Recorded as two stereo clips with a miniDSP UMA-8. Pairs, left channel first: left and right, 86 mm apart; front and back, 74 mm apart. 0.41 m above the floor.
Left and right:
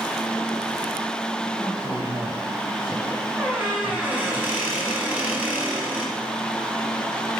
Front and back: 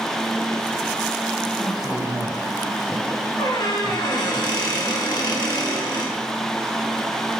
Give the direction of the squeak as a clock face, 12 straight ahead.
1 o'clock.